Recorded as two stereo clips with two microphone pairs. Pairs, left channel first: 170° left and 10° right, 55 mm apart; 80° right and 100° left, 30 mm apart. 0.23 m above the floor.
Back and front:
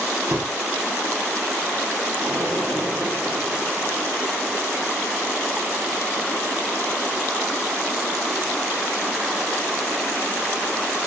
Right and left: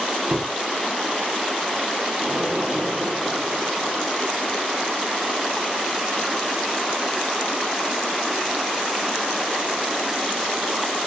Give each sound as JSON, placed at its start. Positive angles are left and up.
{"t": 0.3, "sound": "a door slam", "azimuth_deg": 45, "distance_m": 5.5}
{"t": 2.2, "sound": "an explosion", "azimuth_deg": 40, "distance_m": 4.5}